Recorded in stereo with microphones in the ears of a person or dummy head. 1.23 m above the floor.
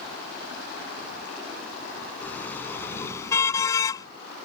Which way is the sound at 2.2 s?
10° left (ahead or behind).